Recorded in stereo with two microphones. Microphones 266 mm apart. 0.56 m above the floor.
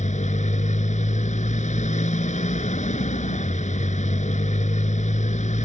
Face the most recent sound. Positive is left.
turn(degrees=30)  # may be behind; listen again after turning